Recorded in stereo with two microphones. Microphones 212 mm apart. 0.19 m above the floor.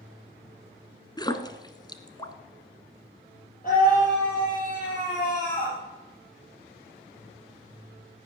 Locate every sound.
1.2 s a splash: 20° left (ahead or behind), 1.0 m
3.6 s a scream: 40° left (ahead or behind), 5 m